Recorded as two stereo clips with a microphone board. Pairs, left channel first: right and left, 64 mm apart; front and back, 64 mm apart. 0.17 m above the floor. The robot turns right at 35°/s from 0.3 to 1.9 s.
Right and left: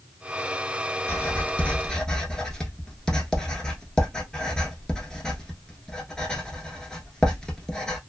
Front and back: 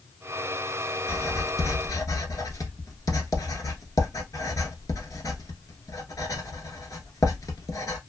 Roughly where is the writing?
Ahead right.